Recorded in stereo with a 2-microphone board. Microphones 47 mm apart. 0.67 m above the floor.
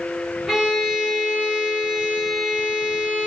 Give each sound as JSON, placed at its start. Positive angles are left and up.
{"t": 0.5, "sound": "a violin", "side_deg": -5, "distance_m": 1.5}